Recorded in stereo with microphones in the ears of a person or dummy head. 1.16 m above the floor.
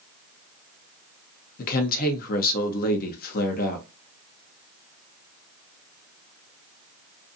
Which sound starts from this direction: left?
A woman speaking, at 1.6 s.